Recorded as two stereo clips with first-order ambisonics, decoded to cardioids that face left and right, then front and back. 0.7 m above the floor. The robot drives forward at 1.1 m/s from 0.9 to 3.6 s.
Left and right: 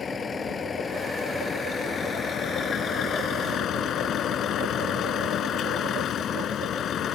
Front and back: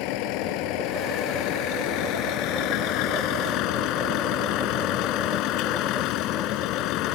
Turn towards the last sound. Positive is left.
turn(degrees=35)